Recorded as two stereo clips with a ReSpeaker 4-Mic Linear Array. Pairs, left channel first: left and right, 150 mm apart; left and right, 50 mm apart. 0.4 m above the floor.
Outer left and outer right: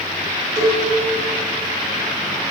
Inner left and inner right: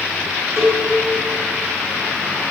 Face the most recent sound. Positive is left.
turn(degrees=-65)  # may be behind; listen again after turning